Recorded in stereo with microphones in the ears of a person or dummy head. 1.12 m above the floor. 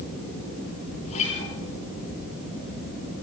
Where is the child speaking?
I don't hear a child speaking.